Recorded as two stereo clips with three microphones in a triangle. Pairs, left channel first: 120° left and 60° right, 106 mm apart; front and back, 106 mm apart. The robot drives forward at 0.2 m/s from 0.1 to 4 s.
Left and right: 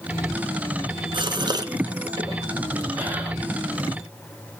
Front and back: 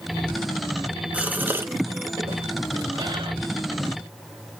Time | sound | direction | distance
1.1 | a gasp | 105° right | 0.6 m